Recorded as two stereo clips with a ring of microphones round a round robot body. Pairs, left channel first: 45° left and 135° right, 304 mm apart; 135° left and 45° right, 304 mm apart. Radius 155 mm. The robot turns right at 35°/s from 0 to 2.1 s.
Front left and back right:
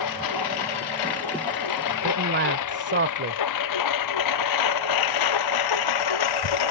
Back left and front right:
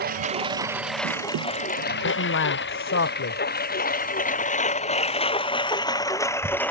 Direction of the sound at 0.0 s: 15° left.